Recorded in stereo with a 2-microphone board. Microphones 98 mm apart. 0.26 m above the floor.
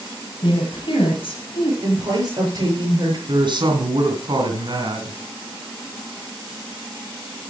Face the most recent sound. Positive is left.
turn(degrees=-50)  # may be behind; listen again after turning